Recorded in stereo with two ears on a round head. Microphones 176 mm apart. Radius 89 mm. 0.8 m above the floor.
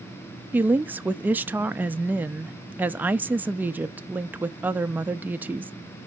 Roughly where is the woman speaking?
Centre.